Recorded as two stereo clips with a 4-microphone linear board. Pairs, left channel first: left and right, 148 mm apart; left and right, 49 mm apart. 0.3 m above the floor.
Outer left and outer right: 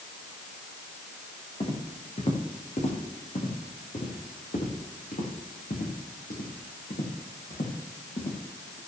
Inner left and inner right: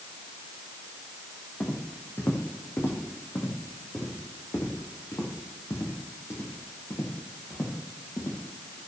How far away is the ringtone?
No ringtone in this recording.